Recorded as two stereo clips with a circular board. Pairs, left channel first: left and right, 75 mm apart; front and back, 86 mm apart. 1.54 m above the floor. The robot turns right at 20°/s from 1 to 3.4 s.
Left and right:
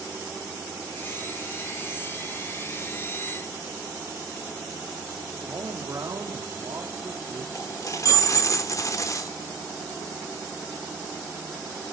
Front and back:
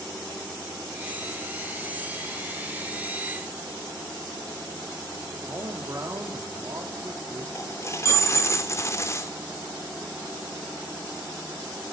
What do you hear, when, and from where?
5.5 s a man speaking: 130° right, 3 m
7.5 s a dropped coin: 50° left, 2 m